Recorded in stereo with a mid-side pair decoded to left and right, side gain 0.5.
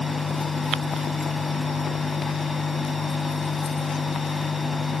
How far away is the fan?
About 0.8 m.